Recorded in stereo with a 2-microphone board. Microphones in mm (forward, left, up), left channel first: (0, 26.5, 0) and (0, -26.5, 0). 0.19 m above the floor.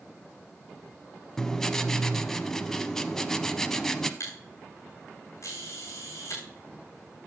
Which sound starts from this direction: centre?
Writing, at 1.4 s.